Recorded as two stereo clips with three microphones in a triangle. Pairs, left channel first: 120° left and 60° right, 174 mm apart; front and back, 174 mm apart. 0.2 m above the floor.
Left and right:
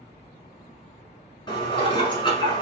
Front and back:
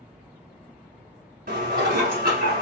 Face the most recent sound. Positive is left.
turn(degrees=175)